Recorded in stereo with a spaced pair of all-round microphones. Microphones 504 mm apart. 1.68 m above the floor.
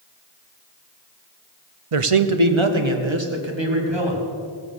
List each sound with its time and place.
1.9 s a man speaking: 85° right, 0.8 m; by 4.2 s 55° right (ahead or behind), 3 m